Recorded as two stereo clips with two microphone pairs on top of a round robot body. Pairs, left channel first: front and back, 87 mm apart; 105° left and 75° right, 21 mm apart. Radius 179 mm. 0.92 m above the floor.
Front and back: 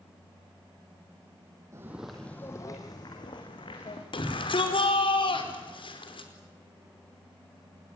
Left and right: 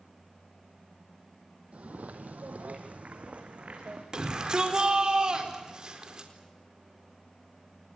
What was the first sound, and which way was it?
Footsteps, 115° right.